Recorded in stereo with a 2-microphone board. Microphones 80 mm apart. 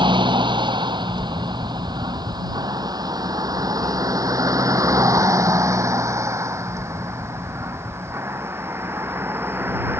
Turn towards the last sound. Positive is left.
turn(degrees=-25)  # may be behind; listen again after turning